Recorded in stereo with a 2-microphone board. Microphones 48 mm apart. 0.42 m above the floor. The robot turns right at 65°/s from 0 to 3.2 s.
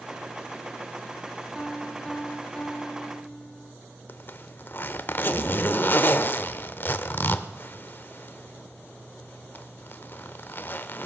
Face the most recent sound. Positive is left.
turn(degrees=45)  # may be behind; listen again after turning